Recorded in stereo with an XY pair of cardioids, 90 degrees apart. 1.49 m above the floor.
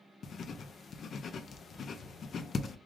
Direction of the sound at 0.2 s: 60° left.